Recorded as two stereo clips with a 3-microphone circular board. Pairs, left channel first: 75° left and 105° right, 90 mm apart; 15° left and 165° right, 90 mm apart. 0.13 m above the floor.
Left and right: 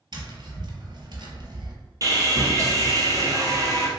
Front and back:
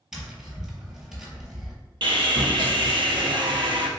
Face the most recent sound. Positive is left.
turn(degrees=-150)